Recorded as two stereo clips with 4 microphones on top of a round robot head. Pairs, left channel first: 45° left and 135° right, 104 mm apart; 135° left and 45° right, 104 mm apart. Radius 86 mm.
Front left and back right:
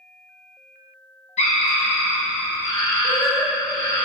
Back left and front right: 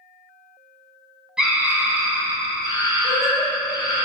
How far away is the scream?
About 1.0 m.